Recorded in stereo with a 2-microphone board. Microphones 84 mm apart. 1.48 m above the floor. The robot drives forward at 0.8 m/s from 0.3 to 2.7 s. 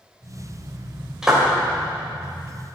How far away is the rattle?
No rattle in this recording.